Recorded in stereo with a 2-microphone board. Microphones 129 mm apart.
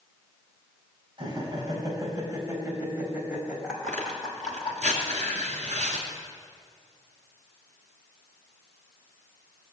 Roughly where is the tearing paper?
Right.